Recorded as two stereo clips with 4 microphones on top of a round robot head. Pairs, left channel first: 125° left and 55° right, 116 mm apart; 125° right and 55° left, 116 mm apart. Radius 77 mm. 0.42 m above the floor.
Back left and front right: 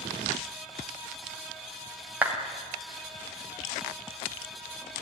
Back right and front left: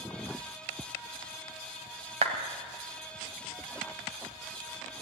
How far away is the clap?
About 2.5 m.